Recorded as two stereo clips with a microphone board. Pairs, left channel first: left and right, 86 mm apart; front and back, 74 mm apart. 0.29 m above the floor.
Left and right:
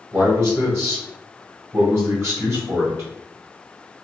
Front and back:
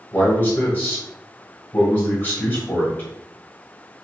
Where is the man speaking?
50° right, 1.7 m.